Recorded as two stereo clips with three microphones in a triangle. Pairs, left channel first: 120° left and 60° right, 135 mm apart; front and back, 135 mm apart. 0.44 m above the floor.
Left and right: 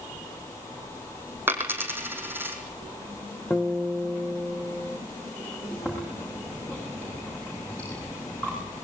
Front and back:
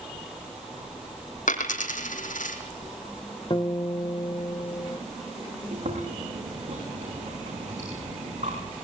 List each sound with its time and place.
1.5 s a dropped coin: 15° left, 3.5 m
3.5 s a guitar: 40° left, 1.4 m
5.7 s chewing: 160° right, 9.5 m